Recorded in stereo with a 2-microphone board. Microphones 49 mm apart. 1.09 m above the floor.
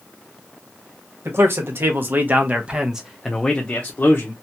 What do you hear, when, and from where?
1.2 s a man speaking: 60° right (ahead or behind), 1.2 m; by 4.3 s 45° left (ahead or behind), 0.8 m